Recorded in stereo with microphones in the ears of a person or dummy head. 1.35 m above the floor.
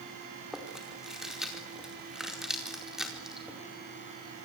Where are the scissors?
I don't hear scissors.